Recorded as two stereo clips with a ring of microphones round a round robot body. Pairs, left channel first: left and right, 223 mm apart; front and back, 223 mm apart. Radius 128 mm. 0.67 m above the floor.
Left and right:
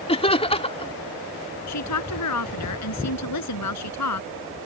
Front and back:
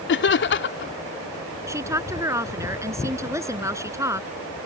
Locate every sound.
0.1 s laughter: 25° left
1.7 s a woman speaking: 105° left